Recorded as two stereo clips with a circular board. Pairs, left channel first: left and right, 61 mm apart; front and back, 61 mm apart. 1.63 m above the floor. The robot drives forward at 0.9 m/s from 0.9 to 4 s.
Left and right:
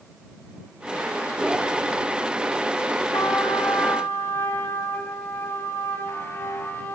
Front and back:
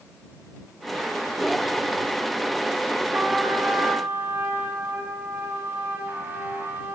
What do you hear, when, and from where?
3.1 s a trumpet: 120° left, 3 m; by 7.0 s 130° left, 3.5 m